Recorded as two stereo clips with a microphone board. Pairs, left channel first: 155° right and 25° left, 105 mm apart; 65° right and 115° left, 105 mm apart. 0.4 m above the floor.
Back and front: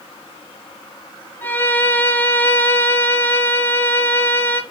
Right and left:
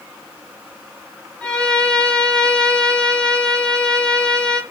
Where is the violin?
130° right, 0.6 m.